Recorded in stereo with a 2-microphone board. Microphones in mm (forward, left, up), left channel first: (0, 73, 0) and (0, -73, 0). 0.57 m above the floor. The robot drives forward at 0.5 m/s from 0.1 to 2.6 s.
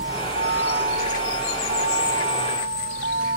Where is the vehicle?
80° right; by 3.4 s 75° right (ahead or behind).